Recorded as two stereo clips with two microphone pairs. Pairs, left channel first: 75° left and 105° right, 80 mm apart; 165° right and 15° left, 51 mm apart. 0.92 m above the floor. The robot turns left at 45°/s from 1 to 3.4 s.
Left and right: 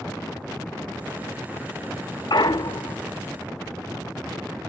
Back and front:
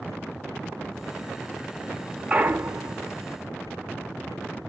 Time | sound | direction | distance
2.3 | a clunk | 70° left | 0.6 m